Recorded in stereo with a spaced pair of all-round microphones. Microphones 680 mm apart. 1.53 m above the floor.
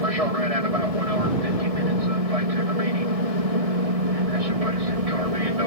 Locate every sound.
0.0 s an aircraft: 60° right (ahead or behind); by 5.7 s 55° right (ahead or behind)